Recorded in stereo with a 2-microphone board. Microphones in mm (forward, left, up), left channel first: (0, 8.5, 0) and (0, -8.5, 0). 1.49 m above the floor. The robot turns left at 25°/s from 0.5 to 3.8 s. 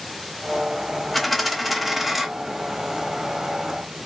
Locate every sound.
1.1 s a dropped coin: centre (ahead or behind), 0.8 m; by 2.3 s 10° right (ahead or behind), 0.8 m